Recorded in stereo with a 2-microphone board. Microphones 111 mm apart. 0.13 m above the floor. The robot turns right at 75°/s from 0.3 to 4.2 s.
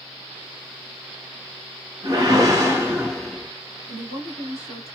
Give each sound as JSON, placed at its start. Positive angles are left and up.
{"t": 2.0, "sound": "a whoosh", "azimuth_deg": -90, "distance_m": 1.4}
{"t": 3.9, "sound": "a woman speaking", "side_deg": 20, "distance_m": 1.5}